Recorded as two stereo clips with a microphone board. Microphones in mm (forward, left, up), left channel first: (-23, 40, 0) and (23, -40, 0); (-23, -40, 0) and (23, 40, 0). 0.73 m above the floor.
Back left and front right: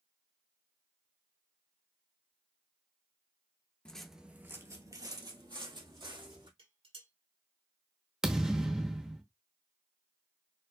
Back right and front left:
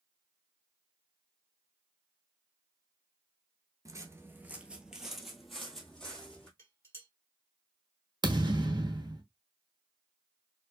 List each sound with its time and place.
3.9 s footsteps: 45° left, 0.8 m; by 6.5 s 40° right, 2.5 m
6.6 s dishes clattering: 55° right, 2 m
8.2 s a thud: 20° left, 0.9 m